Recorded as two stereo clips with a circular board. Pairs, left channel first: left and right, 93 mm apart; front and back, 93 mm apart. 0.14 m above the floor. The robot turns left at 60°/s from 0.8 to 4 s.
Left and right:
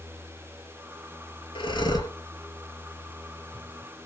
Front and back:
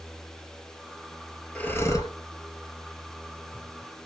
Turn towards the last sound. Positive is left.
turn(degrees=-70)